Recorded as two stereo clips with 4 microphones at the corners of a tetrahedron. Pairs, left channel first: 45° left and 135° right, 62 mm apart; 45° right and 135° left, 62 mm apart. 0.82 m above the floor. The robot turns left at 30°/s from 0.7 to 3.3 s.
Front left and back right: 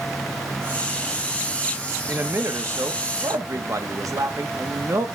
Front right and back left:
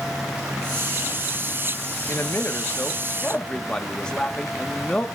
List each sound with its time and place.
2.1 s a man speaking: 85° right, 1.1 m; by 5.1 s 120° right, 1.1 m